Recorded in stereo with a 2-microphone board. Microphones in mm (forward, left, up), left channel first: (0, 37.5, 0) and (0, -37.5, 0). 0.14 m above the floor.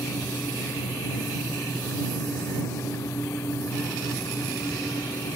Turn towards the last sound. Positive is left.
No sound to turn to.